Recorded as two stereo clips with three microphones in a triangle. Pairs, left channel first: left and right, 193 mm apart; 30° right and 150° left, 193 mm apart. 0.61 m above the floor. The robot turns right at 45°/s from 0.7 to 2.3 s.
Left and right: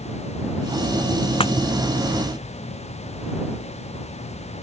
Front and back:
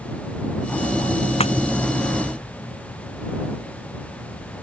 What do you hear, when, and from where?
1.4 s breaking glass: 25° left; by 1.5 s 35° left